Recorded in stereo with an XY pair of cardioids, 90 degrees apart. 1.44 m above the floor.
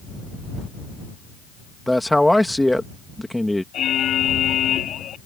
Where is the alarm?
70° left.